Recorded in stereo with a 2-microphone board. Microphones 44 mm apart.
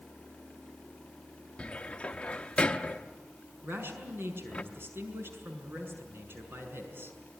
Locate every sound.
1.6 s a cupboard door: 25° left (ahead or behind), 0.8 m
3.6 s a man speaking: 60° right (ahead or behind), 5.5 m